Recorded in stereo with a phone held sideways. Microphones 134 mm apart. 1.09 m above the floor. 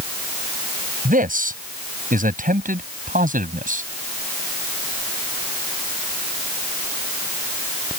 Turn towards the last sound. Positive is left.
turn(degrees=-75)  # may be behind; listen again after turning